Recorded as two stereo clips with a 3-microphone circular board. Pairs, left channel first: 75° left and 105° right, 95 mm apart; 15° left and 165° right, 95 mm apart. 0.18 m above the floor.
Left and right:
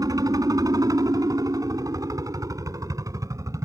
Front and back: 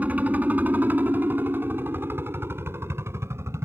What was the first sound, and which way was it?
A helicopter, 100° right.